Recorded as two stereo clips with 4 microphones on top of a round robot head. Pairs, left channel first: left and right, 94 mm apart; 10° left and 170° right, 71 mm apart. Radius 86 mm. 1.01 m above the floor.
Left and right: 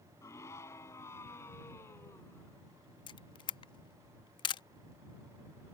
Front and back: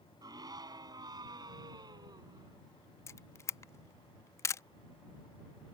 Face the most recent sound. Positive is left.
turn(degrees=55)